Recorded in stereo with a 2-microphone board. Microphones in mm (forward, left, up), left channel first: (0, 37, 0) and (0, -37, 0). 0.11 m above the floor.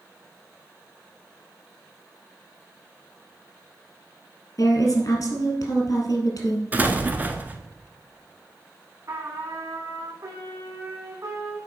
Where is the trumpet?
55° right (ahead or behind), 3 m.